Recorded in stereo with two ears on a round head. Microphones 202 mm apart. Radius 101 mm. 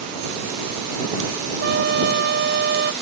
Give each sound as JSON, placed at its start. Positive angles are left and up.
{"t": 1.6, "sound": "a trumpet", "side_deg": -50}